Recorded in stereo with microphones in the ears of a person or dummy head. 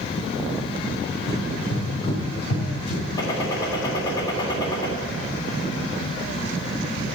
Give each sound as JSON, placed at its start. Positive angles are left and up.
{"t": 1.3, "sound": "running footsteps", "side_deg": 25, "distance_m": 4.0}
{"t": 3.2, "sound": "a gunshot", "side_deg": 25, "distance_m": 2.0}